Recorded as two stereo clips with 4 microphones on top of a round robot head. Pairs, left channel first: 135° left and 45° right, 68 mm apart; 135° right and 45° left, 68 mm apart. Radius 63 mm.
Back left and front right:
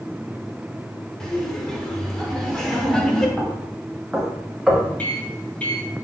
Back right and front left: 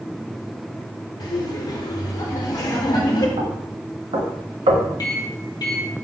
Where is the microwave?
155° right, 3 m.